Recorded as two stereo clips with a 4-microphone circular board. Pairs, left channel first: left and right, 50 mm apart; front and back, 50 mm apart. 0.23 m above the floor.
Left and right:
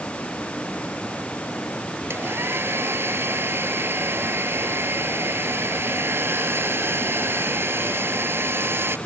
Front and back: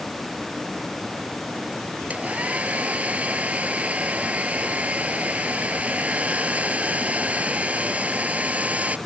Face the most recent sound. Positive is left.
turn(degrees=-125)